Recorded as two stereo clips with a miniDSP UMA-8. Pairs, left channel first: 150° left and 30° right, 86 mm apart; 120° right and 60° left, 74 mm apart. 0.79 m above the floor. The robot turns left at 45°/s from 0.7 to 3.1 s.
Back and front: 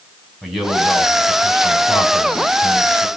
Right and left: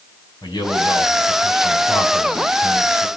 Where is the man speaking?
115° right, 6.5 m; by 3.1 s 135° left, 6.5 m.